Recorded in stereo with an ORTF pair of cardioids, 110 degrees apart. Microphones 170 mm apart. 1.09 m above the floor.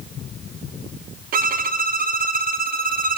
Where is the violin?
55° right, 0.7 m.